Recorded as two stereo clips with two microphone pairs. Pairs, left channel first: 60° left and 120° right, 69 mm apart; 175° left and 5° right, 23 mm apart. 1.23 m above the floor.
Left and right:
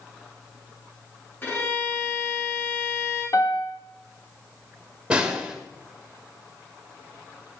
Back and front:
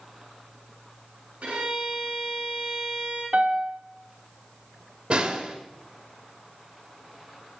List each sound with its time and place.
1.4 s a violin: straight ahead, 8 m
3.3 s a piano: 15° left, 2 m
5.1 s a snare drum: 45° right, 2.5 m